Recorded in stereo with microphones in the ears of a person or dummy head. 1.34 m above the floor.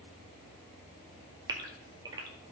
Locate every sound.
1.5 s a gasp: 25° right (ahead or behind), 1.9 m